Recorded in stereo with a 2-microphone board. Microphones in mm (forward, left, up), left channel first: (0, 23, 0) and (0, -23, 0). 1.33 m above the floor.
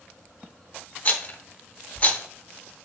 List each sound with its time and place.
1.1 s a rattle: 30° left (ahead or behind), 0.8 m